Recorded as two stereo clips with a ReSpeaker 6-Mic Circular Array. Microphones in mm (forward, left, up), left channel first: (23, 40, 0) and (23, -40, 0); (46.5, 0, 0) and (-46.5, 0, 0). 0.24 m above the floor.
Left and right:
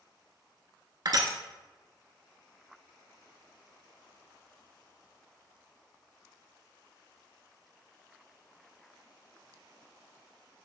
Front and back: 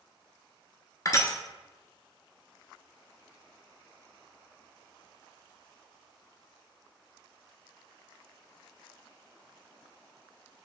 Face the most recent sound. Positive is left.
turn(degrees=-55)